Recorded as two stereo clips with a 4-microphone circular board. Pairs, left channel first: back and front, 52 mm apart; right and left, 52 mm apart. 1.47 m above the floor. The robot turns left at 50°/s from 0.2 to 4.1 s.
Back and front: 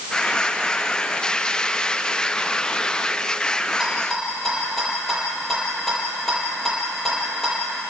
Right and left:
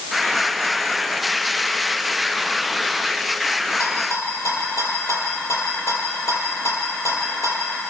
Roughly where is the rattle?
Right.